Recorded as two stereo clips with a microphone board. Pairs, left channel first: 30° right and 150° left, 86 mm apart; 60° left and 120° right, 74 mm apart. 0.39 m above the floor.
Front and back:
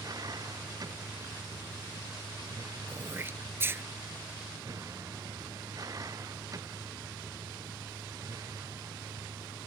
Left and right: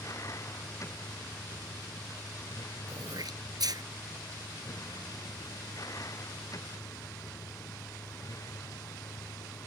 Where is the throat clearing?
150° right.